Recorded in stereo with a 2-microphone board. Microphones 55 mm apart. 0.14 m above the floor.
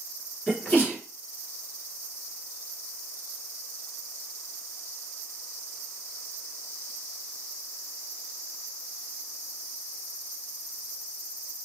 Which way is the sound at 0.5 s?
30° left (ahead or behind).